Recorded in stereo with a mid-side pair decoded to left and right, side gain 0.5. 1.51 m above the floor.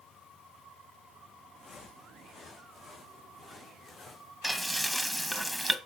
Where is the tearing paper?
I don't hear tearing paper.